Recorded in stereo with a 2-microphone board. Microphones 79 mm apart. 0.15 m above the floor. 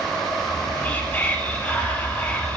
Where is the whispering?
20° left (ahead or behind), 1.1 m.